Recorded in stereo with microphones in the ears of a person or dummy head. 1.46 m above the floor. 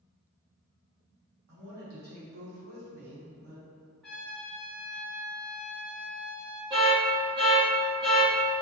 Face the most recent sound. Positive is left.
turn(degrees=-25)  # may be behind; listen again after turning